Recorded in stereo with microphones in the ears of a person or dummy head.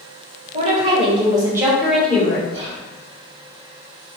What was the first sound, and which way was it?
A woman speaking, 40° right (ahead or behind).